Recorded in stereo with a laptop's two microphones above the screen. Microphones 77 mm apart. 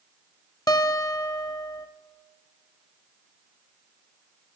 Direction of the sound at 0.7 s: 50° left (ahead or behind).